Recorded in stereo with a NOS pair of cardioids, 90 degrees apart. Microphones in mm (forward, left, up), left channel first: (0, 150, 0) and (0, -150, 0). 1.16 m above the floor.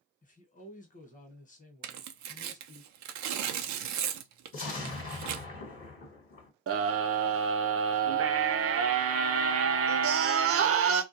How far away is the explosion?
About 1.2 m.